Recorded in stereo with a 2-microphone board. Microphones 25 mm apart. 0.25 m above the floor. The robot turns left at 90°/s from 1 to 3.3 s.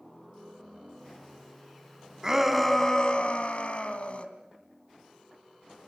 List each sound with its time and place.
2.2 s a shout: 155° right, 2.5 m; by 4.3 s 110° left, 2.5 m